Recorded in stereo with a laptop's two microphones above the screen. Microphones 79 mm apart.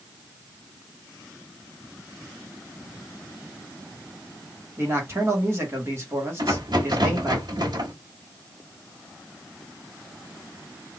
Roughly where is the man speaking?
Right.